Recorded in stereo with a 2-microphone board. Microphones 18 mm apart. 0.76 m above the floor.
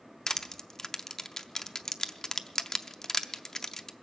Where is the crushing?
30° left (ahead or behind), 0.5 m.